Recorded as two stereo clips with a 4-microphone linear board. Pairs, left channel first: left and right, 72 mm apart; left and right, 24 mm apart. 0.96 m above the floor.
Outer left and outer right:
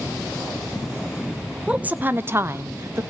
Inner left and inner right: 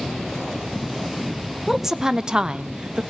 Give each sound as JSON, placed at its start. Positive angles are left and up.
{"t": 1.7, "sound": "a woman speaking", "side_deg": -15, "distance_m": 0.6}